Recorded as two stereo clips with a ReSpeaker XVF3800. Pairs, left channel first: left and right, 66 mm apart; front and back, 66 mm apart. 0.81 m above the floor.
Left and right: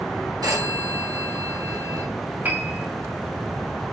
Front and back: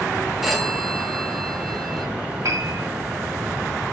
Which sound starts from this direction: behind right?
A piano, at 2.4 s.